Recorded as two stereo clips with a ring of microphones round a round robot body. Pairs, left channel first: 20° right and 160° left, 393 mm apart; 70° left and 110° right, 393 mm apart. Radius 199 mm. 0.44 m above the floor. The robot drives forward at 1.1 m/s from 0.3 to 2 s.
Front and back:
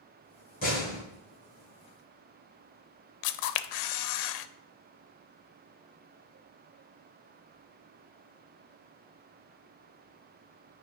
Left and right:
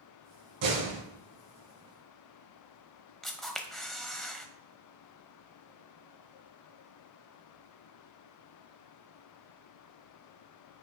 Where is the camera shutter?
20° right, 0.5 m.